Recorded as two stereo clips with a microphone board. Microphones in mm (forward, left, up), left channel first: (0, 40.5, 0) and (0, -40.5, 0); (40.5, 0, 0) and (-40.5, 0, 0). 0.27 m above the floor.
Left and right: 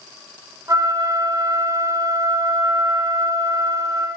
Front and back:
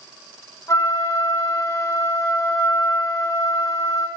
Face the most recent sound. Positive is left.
turn(degrees=-45)